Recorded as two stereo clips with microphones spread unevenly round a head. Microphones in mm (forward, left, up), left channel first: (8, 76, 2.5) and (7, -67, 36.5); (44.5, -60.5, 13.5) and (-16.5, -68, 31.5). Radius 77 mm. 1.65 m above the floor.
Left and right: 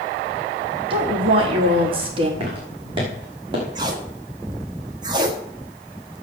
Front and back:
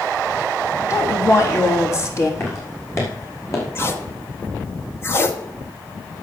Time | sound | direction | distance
0.9 | a woman speaking | 35° right | 4 m
2.4 | footsteps | 40° right | 6 m
3.8 | tape being pulled | 45° right | 1.6 m